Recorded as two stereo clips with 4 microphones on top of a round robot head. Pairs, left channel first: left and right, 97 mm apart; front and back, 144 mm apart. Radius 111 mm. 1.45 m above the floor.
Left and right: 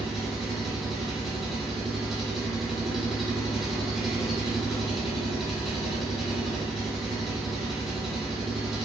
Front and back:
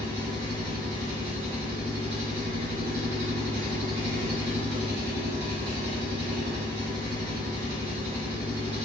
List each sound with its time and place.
0.0 s an engine running: 175° right, 1.0 m